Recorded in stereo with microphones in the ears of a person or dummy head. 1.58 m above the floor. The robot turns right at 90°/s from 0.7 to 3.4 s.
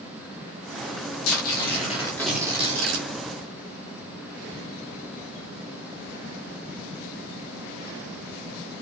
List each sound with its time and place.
1.2 s tearing paper: 85° left, 3.5 m; by 3.1 s 110° right, 3.5 m